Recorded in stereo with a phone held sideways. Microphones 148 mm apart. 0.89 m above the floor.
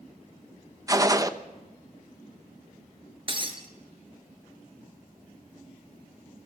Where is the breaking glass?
35° right (ahead or behind), 1.9 m.